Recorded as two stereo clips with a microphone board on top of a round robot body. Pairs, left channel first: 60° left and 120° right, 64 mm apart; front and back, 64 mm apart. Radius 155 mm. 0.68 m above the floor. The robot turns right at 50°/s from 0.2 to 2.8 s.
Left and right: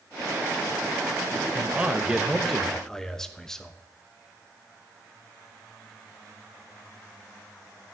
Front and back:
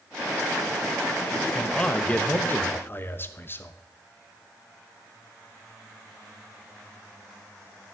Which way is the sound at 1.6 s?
80° right.